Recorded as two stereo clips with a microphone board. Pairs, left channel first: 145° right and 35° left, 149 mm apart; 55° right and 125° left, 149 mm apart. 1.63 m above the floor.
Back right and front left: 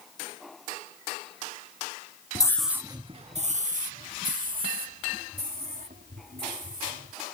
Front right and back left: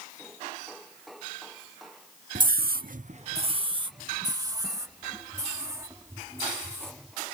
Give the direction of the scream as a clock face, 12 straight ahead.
7 o'clock.